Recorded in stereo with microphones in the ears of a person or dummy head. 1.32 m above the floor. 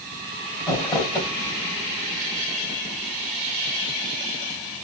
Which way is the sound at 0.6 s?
20° left (ahead or behind).